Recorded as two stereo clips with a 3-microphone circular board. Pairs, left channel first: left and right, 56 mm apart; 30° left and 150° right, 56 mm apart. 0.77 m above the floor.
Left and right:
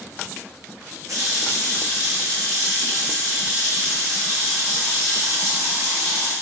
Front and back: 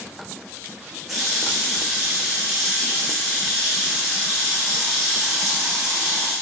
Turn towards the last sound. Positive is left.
turn(degrees=-60)